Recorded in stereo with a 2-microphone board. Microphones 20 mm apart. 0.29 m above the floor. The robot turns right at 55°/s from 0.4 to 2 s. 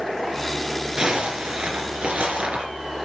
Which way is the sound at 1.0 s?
140° right.